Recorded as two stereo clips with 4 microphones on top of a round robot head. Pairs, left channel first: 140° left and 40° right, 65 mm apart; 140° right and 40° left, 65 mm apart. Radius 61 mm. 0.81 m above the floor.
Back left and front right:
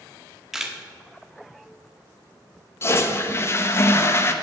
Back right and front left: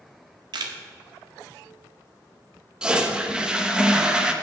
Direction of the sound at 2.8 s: 115° left.